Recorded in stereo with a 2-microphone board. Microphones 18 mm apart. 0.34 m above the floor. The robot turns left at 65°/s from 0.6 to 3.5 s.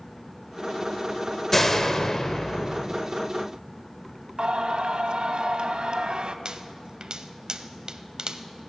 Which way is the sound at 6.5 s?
55° right (ahead or behind).